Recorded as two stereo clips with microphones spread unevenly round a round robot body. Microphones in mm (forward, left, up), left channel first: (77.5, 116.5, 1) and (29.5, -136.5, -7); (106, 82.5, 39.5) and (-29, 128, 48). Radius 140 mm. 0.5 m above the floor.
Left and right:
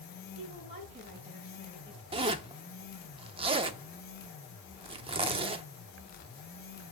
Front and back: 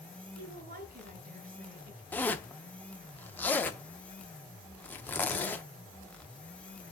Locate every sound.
0.3 s a woman speaking: 170° right, 3.5 m
2.1 s a zipper: 70° right, 0.6 m